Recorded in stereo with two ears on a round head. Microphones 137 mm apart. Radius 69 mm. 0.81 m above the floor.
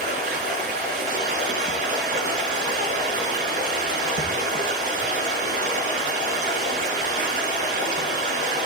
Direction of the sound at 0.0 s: 55° right (ahead or behind).